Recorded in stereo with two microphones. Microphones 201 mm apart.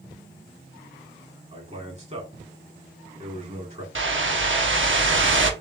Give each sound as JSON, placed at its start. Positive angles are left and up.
{"t": 1.5, "sound": "a man speaking", "side_deg": -35, "distance_m": 2.0}
{"t": 4.0, "sound": "a whoosh", "side_deg": -75, "distance_m": 0.8}